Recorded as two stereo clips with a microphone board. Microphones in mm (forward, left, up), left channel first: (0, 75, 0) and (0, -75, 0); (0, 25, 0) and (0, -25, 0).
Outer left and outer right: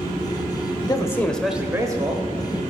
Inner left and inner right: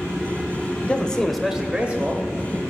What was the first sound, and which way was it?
A man speaking, 30° left (ahead or behind).